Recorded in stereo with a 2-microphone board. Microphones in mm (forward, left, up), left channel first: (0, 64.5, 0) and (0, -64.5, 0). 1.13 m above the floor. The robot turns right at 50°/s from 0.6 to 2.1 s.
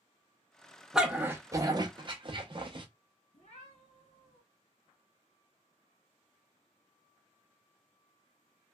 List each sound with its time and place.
0.9 s a dog barking: 5° right (ahead or behind), 0.7 m; by 2.9 s 40° right (ahead or behind), 0.7 m
3.3 s a cat meowing: 60° left (ahead or behind), 2 m